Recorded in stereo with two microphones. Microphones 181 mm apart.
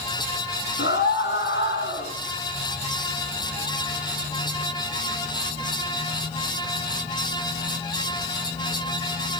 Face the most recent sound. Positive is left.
turn(degrees=85)